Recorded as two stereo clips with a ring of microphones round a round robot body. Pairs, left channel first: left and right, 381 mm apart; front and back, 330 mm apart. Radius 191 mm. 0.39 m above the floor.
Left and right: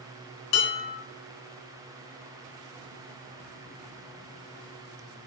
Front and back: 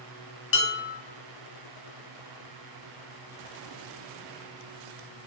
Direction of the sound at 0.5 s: 50° left.